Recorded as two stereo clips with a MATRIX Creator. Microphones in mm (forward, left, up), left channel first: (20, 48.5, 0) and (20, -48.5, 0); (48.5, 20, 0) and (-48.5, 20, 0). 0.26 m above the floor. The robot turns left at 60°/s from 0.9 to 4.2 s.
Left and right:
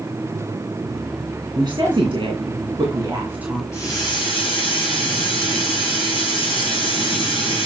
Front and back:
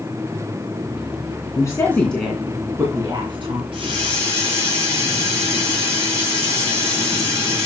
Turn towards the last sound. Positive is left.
turn(degrees=120)